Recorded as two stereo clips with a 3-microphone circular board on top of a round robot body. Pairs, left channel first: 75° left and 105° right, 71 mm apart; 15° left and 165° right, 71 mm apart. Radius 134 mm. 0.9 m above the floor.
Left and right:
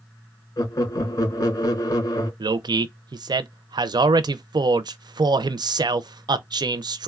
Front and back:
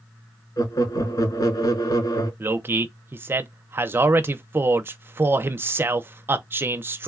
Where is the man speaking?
110° right, 0.5 m.